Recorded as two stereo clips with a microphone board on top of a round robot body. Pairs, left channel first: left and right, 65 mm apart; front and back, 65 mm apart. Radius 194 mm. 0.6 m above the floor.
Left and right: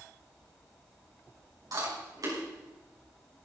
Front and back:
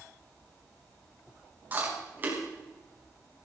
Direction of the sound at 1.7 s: 120° right.